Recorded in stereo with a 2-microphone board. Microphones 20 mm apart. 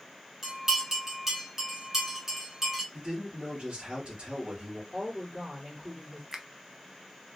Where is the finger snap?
25° right (ahead or behind), 0.5 m.